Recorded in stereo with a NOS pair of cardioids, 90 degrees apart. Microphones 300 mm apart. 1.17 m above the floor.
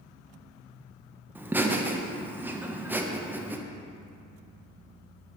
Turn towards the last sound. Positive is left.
turn(degrees=-5)